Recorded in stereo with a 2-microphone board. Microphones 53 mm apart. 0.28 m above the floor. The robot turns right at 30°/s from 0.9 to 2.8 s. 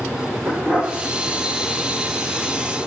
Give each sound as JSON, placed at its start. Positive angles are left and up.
{"t": 0.5, "sound": "a dog barking", "side_deg": -20, "distance_m": 7.0}